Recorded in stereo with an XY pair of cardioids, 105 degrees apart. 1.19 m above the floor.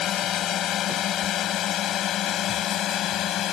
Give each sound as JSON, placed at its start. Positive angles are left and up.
{"t": 0.0, "sound": "a drone", "azimuth_deg": 70}